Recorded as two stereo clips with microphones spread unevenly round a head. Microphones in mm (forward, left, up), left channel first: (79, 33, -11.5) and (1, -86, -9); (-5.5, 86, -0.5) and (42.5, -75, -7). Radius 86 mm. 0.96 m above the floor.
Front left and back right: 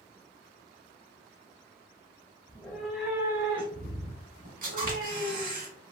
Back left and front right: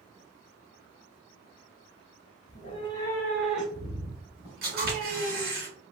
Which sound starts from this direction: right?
A camera shutter, at 4.6 s.